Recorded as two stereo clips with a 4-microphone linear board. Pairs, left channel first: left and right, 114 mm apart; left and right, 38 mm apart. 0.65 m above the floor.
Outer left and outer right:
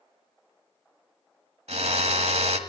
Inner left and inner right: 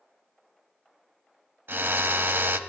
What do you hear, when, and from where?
1.7 s a drill: 70° right (ahead or behind), 1.4 m